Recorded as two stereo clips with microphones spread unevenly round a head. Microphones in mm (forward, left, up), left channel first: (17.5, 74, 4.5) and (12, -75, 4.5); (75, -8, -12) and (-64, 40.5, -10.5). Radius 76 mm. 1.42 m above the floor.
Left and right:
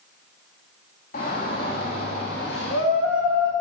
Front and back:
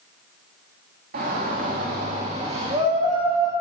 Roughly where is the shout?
Behind left.